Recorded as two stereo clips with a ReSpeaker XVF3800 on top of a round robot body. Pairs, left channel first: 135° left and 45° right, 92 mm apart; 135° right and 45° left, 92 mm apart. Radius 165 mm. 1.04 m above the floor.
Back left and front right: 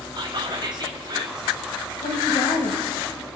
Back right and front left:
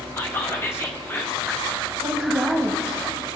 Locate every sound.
0.2 s whispering: 75° right, 0.7 m
2.0 s a woman speaking: 110° left, 1.2 m